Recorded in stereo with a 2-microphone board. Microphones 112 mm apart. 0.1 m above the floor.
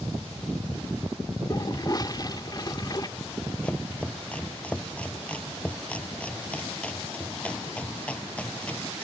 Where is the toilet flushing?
35° left (ahead or behind).